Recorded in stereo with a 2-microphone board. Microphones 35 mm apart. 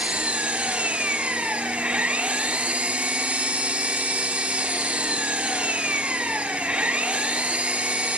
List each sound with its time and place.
0.0 s an engine running: 40° right (ahead or behind), 1.5 m